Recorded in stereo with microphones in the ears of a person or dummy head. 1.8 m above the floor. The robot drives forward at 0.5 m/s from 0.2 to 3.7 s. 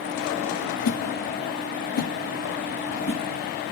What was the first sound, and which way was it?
A whoosh, 80° left.